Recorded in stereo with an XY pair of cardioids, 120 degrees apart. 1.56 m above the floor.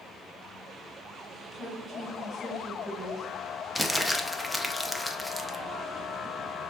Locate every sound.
1.5 s a woman speaking: 5° right, 2 m
3.8 s crumpling: 5° left, 0.5 m